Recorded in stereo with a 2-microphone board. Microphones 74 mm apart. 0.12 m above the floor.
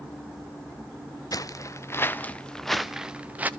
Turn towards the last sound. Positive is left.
turn(degrees=-25)  # may be behind; listen again after turning